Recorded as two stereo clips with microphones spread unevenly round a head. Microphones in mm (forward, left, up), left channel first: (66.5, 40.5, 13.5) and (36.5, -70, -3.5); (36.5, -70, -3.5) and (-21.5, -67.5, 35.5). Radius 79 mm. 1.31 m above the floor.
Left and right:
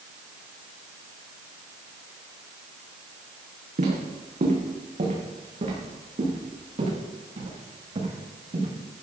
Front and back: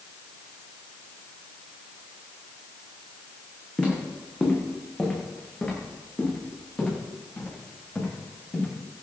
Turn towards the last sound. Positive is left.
turn(degrees=-70)